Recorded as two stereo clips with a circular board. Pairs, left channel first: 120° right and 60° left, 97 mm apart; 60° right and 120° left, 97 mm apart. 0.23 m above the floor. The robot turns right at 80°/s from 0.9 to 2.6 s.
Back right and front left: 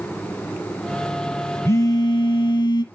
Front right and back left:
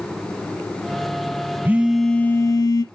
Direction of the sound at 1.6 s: 175° right.